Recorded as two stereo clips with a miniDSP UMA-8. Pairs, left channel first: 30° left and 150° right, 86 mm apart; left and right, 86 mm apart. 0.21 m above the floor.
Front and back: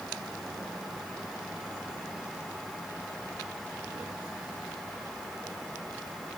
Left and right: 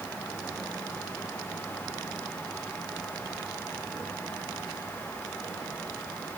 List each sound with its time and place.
Only background noise.